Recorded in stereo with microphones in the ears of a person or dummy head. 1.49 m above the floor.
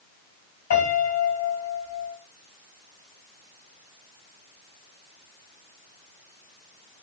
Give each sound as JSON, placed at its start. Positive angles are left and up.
{"t": 0.7, "sound": "a piano", "side_deg": 55, "distance_m": 3.5}